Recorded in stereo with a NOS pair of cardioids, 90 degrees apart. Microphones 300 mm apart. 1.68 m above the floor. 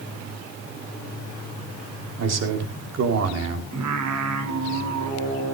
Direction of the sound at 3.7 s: 65° right.